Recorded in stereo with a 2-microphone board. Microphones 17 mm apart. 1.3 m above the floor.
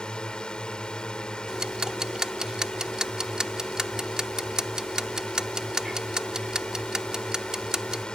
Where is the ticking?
35° right (ahead or behind).